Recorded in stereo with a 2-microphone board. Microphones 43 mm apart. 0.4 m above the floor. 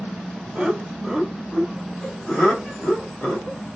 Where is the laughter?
25° right (ahead or behind), 1.2 m; by 3.6 s 40° left (ahead or behind), 1.5 m.